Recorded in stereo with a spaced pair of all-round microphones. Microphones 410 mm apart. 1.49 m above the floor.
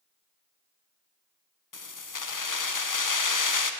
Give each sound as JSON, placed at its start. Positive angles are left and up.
{"t": 1.7, "sound": "keys jangling", "side_deg": 45, "distance_m": 0.6}